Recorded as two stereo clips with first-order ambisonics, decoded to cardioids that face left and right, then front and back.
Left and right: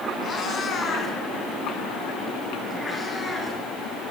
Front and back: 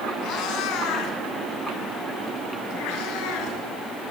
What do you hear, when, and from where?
0.2 s a cat meowing: 30° left, 2.5 m; by 3.6 s 5° left, 4 m